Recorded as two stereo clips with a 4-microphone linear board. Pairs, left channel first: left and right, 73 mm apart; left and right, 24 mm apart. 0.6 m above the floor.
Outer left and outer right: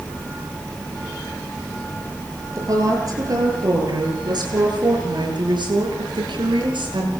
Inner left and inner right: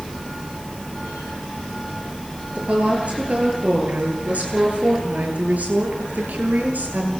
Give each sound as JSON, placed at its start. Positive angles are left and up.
{"t": 2.5, "sound": "a woman speaking", "side_deg": -50, "distance_m": 10.0}